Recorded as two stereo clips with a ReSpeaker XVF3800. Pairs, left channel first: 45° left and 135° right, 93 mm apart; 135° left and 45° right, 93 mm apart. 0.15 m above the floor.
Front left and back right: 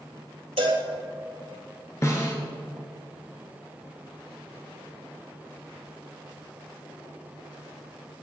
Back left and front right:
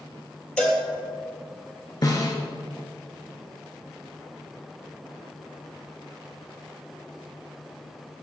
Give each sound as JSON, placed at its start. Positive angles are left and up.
{"t": 0.6, "sound": "a cowbell", "azimuth_deg": -145, "distance_m": 2.0}
{"t": 2.0, "sound": "a snare drum", "azimuth_deg": 95, "distance_m": 2.0}